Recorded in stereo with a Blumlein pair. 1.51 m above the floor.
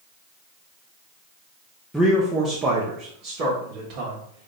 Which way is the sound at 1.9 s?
5° right.